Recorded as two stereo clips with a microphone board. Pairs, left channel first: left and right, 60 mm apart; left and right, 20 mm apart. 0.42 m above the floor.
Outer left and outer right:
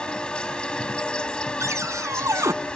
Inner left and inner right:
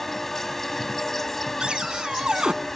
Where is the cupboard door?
60° right (ahead or behind).